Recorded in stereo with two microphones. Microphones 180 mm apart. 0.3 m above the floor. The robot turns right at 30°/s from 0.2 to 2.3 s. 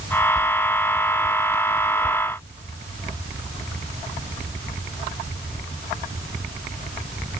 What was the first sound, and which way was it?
Only background noise.